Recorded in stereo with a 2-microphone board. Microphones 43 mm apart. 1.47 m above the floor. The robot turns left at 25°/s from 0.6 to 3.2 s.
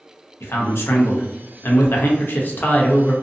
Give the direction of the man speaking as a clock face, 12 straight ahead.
9 o'clock.